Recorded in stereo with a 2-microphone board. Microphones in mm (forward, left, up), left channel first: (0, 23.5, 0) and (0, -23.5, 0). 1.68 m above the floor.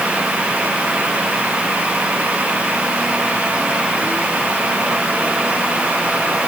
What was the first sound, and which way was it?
Only background noise.